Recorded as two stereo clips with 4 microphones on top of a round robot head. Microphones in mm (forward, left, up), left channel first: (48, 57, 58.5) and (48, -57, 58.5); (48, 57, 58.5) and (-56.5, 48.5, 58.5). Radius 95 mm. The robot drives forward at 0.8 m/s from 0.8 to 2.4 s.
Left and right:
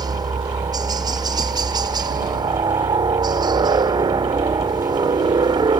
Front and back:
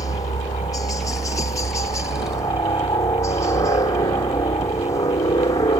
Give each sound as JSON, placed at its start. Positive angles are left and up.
{"t": 0.0, "sound": "a helicopter", "azimuth_deg": -45}